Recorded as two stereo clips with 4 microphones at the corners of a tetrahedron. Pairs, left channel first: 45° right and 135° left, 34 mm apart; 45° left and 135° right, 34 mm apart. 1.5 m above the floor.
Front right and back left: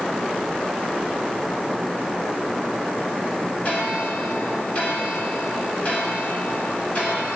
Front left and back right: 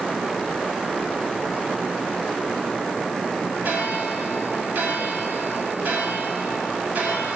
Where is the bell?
100° right, 5.5 m.